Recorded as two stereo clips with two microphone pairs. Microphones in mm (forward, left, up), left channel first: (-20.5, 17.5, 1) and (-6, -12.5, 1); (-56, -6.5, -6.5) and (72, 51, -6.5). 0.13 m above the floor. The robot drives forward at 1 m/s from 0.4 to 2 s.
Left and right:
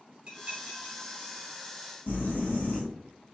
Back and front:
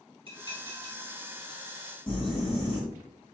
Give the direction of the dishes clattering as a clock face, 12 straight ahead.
12 o'clock.